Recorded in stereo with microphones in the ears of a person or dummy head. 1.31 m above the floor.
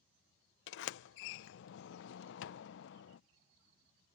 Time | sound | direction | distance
0.7 | a sliding door | 70° left (ahead or behind) | ?